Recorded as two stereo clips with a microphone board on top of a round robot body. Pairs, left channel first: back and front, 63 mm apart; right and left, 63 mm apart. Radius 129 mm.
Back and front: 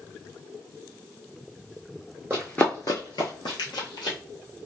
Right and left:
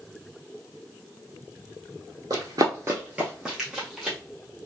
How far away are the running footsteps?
About 0.6 m.